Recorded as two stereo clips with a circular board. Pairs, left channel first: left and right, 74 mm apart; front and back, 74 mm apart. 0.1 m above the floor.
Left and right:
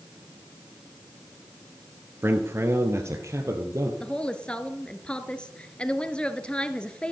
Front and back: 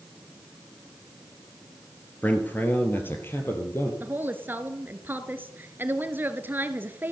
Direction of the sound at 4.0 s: 155° left.